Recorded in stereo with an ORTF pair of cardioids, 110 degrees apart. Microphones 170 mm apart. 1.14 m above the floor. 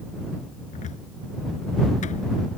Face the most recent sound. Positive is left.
turn(degrees=50)